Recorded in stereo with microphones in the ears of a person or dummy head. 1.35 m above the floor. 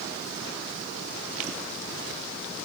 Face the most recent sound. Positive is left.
No sound to turn to.